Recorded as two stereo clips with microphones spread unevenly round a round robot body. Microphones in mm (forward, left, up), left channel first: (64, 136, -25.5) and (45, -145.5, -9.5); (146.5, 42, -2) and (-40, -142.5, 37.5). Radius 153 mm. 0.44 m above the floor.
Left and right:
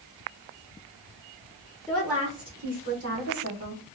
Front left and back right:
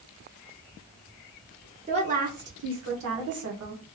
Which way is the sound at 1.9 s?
160° left.